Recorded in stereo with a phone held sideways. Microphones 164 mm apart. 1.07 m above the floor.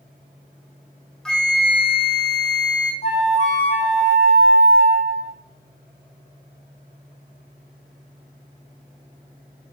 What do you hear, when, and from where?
1.2 s a flute: 5° left (ahead or behind), 0.6 m
3.0 s a flute: 45° left (ahead or behind), 0.7 m